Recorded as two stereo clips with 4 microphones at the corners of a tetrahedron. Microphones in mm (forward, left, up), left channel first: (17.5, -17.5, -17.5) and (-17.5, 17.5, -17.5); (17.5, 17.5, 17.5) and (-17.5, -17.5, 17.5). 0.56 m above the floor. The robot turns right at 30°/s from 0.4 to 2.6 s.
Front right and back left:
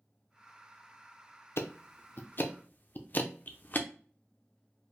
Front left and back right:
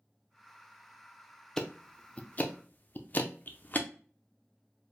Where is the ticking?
30° right, 0.5 m; by 3.9 s straight ahead, 0.5 m.